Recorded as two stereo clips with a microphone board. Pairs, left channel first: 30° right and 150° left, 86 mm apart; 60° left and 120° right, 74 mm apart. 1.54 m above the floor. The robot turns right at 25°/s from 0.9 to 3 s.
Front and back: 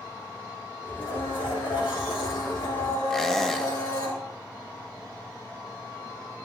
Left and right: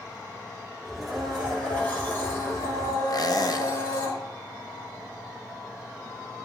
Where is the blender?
35° right, 5 m; by 4.1 s 15° left, 5 m.